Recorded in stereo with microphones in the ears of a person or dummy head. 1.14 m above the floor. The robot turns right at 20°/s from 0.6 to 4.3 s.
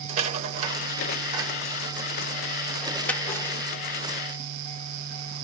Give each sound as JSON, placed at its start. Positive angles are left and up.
{"t": 0.1, "sound": "a rattle", "side_deg": -45, "distance_m": 0.9}